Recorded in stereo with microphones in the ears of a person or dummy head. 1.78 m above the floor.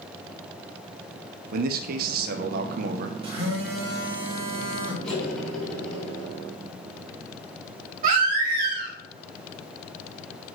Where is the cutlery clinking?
10° left (ahead or behind), 3.5 m.